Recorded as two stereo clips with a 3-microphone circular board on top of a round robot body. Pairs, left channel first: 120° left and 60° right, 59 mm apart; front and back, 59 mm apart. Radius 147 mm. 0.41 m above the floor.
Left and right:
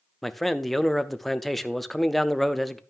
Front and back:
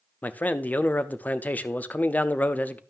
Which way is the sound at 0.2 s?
35° left.